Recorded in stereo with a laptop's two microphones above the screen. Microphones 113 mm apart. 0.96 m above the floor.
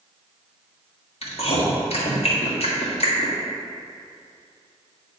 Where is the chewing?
60° left (ahead or behind), 1.6 m.